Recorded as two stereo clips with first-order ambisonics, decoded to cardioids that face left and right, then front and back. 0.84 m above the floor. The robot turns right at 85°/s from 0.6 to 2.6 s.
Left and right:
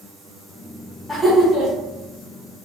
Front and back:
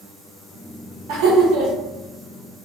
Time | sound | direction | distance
1.1 | laughter | 170° left | 1.1 m